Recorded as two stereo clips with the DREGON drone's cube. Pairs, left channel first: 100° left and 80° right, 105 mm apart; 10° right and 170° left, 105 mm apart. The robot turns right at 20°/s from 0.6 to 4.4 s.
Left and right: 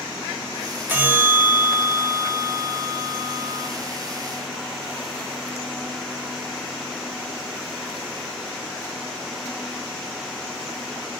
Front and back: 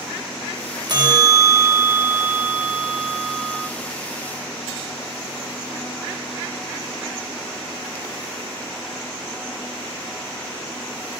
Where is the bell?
145° right, 1.1 m; by 3.7 s 90° right, 1.1 m.